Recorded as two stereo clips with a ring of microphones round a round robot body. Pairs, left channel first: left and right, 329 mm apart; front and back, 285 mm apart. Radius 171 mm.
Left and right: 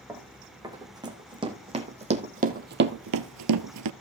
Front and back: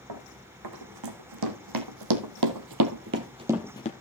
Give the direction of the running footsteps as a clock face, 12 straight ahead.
6 o'clock.